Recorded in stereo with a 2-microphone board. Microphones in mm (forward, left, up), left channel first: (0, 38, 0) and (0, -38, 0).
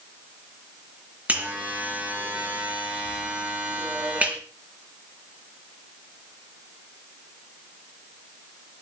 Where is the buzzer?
20° right (ahead or behind), 4.5 m.